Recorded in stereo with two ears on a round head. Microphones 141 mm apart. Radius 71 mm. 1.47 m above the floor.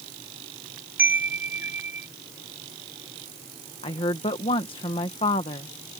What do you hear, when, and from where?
1.0 s a chime: 15° right (ahead or behind)
3.8 s a woman speaking: 35° left (ahead or behind)